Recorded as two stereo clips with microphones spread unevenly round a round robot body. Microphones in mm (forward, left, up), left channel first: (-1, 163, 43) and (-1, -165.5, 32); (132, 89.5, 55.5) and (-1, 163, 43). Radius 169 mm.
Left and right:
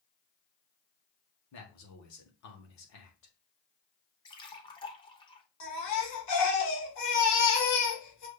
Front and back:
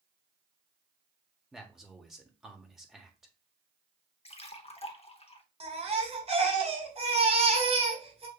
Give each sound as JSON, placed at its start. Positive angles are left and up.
{"t": 1.5, "sound": "a man speaking", "azimuth_deg": 65, "distance_m": 1.3}
{"t": 4.2, "sound": "a splash", "azimuth_deg": 15, "distance_m": 1.0}
{"t": 5.6, "sound": "a baby crying", "azimuth_deg": 115, "distance_m": 1.6}